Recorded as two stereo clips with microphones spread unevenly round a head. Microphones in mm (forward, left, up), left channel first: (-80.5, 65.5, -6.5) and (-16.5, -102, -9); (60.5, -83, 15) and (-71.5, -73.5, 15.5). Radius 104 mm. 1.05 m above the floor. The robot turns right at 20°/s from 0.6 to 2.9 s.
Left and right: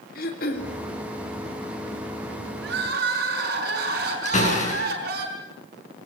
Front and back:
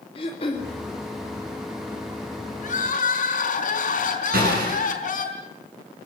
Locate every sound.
0.1 s throat clearing: 60° left, 2.5 m
2.6 s crying: 25° right, 5 m; by 5.2 s 20° right, 5 m
4.2 s a door slam: 160° left, 9.5 m